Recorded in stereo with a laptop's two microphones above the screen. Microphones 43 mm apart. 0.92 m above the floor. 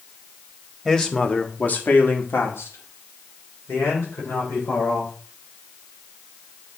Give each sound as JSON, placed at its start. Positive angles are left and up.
{"t": 0.8, "sound": "a man speaking", "side_deg": 10, "distance_m": 1.4}